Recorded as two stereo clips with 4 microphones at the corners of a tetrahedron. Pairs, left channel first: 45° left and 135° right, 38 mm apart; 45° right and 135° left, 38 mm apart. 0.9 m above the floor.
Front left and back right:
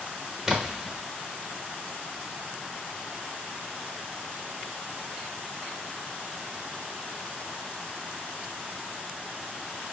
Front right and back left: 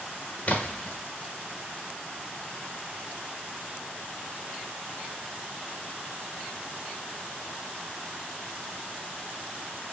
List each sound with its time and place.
0.5 s a splash: 60° right, 0.7 m